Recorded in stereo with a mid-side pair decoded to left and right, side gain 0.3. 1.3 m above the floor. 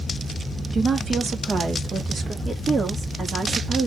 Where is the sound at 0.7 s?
60° right, 0.9 m; by 2.4 s 65° right, 2 m.